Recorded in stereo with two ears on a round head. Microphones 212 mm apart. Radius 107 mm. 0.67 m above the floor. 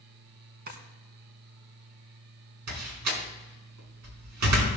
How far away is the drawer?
About 2.0 m.